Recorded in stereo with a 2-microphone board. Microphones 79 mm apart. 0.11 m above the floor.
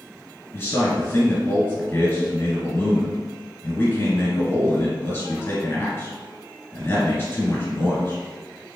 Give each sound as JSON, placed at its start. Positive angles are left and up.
{"t": 0.5, "sound": "a man speaking", "side_deg": 30, "distance_m": 2.0}